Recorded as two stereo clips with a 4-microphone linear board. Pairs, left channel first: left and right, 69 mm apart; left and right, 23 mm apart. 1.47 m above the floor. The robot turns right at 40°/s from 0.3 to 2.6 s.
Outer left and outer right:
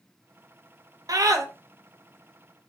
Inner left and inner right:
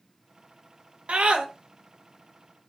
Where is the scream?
60° right (ahead or behind), 0.6 m; by 1.4 s 50° right (ahead or behind), 0.6 m.